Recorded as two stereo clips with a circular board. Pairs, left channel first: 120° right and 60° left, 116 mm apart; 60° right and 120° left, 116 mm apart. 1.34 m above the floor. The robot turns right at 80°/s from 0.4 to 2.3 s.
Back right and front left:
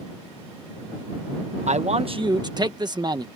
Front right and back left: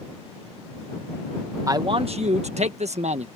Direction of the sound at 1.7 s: 60° left.